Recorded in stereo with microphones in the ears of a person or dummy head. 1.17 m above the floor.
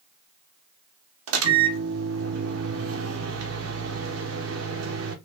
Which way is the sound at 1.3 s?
80° right.